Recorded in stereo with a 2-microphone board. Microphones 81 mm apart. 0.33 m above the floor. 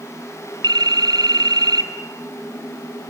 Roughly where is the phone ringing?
Right.